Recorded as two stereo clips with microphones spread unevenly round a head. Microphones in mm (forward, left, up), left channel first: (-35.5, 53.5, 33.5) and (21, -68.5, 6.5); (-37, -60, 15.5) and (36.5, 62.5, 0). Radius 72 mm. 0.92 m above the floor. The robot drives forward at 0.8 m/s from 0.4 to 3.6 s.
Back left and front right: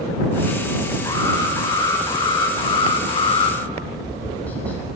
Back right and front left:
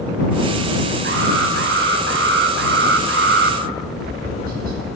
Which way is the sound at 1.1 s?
45° left.